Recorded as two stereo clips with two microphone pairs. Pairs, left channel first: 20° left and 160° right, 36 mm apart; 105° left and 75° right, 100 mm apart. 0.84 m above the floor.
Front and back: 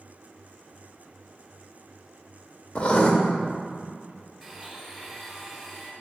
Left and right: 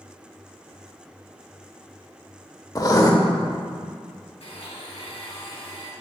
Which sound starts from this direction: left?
A blender, at 4.4 s.